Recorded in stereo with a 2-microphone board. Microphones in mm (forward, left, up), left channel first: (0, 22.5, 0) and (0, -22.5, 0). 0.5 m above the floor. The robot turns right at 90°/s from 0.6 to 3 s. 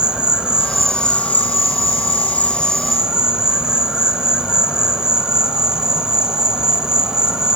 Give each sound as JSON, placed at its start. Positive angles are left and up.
{"t": 0.0, "sound": "an insect", "azimuth_deg": -20, "distance_m": 0.7}